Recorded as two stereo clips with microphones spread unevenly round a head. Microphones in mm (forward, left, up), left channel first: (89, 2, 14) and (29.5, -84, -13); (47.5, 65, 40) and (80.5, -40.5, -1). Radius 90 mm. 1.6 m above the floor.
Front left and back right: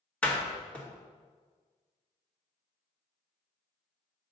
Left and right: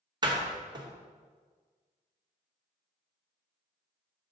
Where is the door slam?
20° right, 1.8 m.